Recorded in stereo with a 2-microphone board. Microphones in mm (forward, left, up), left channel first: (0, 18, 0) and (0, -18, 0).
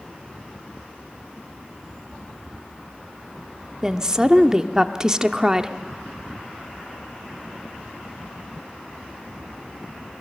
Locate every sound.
3.8 s a woman speaking: 20° right (ahead or behind), 0.7 m